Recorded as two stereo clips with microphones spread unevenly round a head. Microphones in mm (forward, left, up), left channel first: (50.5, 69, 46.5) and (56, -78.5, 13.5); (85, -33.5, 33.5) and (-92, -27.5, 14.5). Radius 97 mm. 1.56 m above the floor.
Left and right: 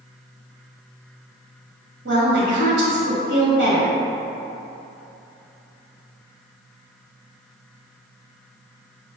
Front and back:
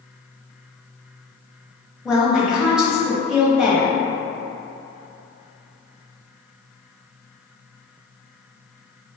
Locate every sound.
2.0 s a woman speaking: 95° right, 1.3 m